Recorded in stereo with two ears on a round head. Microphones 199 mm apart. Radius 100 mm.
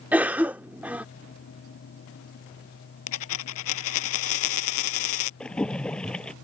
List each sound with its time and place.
0.1 s a cough: 5° right (ahead or behind)
3.1 s a dropped coin: 70° left (ahead or behind)
5.4 s a splash: 5° left (ahead or behind)